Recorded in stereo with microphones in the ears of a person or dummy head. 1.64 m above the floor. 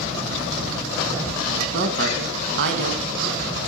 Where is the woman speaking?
65° right (ahead or behind), 1.8 m.